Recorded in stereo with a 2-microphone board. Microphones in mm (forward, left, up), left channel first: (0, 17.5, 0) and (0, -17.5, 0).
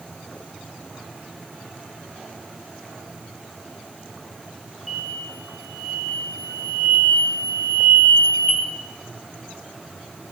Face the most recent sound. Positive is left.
turn(degrees=5)  # may be behind; listen again after turning